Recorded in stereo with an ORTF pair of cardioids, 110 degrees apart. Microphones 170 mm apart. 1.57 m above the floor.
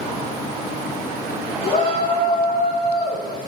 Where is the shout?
55° left, 3 m; by 3.5 s 65° left, 4.5 m.